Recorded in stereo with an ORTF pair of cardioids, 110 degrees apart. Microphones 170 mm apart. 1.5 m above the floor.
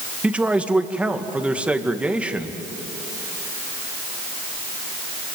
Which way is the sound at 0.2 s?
5° right.